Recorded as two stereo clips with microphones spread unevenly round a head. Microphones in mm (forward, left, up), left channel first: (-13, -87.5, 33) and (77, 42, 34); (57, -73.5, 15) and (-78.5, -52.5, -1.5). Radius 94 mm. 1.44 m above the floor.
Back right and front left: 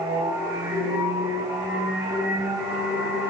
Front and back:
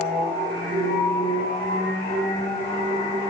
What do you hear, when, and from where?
0.0 s a machine running: 15° left, 1.4 m